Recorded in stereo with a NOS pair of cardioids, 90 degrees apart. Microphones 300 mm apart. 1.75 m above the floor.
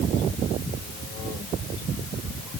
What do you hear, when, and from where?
Only background noise.